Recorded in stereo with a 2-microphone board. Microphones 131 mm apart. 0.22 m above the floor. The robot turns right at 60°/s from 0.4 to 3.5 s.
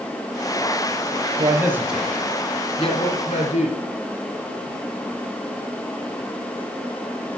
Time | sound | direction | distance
1.4 | a man speaking | 35° right (ahead or behind) | 3 m